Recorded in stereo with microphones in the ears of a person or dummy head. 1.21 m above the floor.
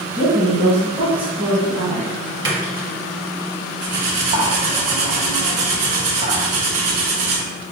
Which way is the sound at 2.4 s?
25° right (ahead or behind).